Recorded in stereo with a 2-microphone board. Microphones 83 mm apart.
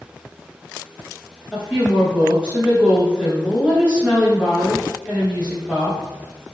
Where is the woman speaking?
10° right (ahead or behind), 1.6 m.